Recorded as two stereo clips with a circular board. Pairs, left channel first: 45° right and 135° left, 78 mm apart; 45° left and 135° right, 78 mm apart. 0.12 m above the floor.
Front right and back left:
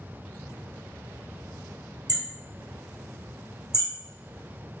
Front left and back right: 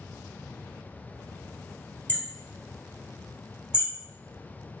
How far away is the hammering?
About 2 m.